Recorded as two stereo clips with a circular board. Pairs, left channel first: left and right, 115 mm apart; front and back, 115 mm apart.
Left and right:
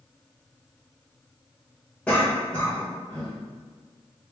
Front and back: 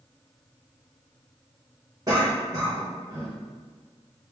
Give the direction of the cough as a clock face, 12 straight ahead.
7 o'clock.